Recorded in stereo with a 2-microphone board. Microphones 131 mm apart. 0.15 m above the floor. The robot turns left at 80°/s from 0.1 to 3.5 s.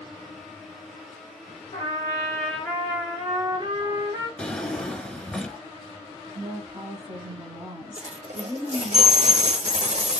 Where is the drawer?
10° left (ahead or behind), 0.6 m.